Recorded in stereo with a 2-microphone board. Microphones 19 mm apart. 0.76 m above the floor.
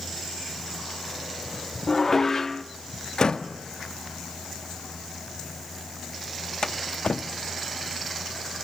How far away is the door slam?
About 1.1 m.